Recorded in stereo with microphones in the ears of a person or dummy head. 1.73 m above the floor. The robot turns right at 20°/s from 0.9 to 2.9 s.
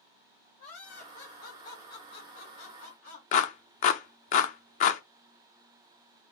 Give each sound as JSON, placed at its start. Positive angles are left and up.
{"t": 0.6, "sound": "laughter", "azimuth_deg": 55, "distance_m": 1.9}
{"t": 3.3, "sound": "a clap", "side_deg": 45, "distance_m": 0.5}